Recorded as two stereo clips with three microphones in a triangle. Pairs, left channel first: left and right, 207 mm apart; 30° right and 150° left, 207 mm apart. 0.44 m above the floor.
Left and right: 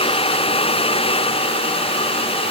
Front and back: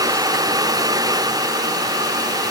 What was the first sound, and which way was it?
Only background noise.